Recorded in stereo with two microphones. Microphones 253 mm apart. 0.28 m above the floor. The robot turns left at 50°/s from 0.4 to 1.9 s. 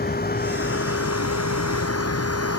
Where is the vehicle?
145° left; by 2.6 s 70° left.